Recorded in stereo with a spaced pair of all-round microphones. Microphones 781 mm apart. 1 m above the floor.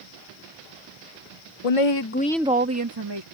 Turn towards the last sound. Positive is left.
turn(degrees=-35)  # may be behind; listen again after turning